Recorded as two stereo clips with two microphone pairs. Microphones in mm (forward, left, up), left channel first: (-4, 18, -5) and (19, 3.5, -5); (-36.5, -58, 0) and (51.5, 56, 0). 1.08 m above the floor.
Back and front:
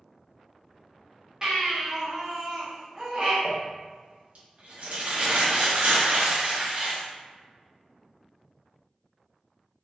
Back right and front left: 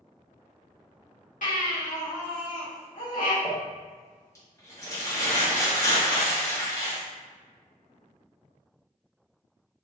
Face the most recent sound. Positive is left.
turn(degrees=-60)